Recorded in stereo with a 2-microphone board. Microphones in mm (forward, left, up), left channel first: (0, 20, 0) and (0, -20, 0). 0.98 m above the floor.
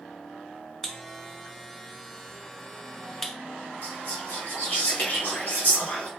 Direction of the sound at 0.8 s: 10° left (ahead or behind).